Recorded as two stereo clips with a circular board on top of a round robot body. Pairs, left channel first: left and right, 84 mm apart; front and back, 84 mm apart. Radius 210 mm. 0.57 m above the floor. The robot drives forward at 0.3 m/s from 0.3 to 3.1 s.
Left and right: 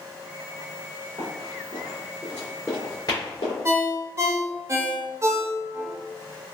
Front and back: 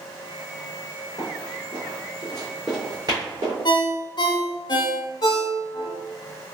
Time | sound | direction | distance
1.2 | running footsteps | 45° right | 1.5 m
3.6 | a ringtone | 35° right | 0.7 m